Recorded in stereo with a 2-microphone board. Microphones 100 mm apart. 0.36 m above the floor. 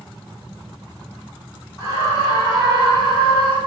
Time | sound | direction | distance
1.8 | a scream | 35° left (ahead or behind) | 2.0 m